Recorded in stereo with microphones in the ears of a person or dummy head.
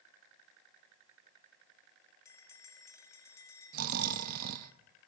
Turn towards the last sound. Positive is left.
turn(degrees=-55)  # may be behind; listen again after turning